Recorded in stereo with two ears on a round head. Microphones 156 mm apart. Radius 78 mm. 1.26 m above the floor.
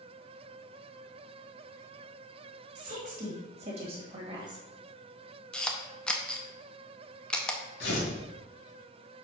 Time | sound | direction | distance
2.8 | a woman speaking | 50° right (ahead or behind) | 2.5 m
5.5 | a camera shutter | 5° left (ahead or behind) | 0.7 m
7.8 | tearing paper | 65° left (ahead or behind) | 2 m